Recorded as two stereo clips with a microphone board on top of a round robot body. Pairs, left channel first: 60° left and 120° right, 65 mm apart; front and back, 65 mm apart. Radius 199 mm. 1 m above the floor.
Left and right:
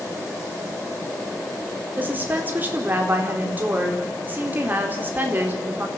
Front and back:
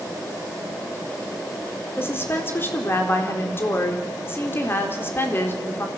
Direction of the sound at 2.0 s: 60° right.